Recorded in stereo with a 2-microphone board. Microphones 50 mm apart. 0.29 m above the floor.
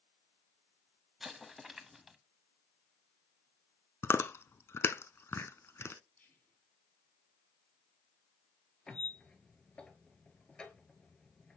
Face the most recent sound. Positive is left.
turn(degrees=15)  # may be behind; listen again after turning